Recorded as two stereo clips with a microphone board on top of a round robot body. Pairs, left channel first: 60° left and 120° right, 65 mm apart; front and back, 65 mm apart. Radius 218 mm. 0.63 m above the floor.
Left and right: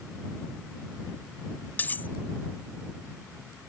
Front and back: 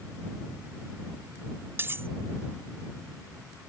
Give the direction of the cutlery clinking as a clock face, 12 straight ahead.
8 o'clock.